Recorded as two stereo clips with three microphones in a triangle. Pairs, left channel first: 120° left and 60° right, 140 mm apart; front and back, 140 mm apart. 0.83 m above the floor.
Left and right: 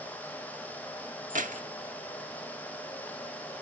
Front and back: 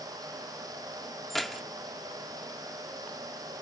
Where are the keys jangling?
90° right, 1.1 m.